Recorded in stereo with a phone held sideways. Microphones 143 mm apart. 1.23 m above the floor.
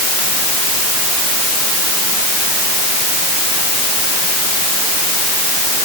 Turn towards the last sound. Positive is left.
No sound to turn to.